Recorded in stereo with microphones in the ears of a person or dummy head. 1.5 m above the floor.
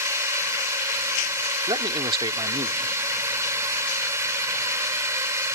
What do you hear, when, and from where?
0.0 s a drone: 15° right (ahead or behind)
1.7 s a man speaking: 25° right (ahead or behind)